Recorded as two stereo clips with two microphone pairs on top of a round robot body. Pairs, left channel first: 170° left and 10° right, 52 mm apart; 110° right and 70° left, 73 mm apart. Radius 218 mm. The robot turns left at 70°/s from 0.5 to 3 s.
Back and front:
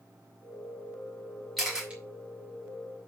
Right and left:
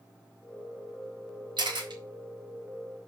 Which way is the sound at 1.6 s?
80° left.